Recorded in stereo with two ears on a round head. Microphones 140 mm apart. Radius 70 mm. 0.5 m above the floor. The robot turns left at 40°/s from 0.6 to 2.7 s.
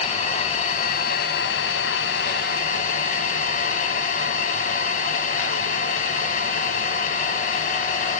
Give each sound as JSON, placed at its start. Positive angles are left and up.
{"t": 0.0, "sound": "an engine running", "azimuth_deg": 135, "distance_m": 1.0}